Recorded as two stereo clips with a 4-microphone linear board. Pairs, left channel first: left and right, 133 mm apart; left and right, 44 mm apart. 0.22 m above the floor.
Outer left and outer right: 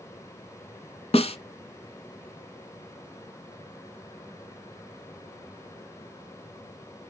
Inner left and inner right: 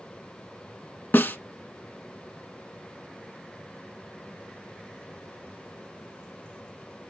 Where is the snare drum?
50° left (ahead or behind), 0.9 m.